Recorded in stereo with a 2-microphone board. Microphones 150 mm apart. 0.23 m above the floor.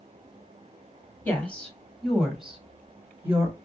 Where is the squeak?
I don't hear a squeak.